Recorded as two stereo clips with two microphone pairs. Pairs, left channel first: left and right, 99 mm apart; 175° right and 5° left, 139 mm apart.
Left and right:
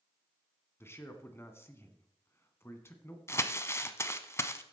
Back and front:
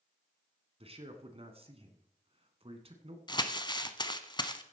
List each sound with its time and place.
0.8 s a man speaking: 30° left, 1.8 m
3.3 s crumpling: 140° left, 0.8 m